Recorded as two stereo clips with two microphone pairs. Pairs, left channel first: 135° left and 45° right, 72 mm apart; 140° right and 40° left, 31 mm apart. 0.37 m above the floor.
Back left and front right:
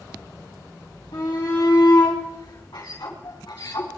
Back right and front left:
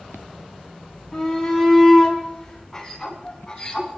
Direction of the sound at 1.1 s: 130° left.